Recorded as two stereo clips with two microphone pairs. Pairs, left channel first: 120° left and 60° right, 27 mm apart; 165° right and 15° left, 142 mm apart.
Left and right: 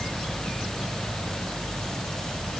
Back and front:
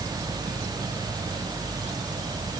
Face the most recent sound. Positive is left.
No sound to turn to.